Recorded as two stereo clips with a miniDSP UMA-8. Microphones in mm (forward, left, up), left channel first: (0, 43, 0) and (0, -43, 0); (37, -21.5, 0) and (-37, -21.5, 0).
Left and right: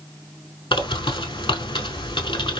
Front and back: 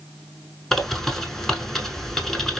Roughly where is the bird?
Left.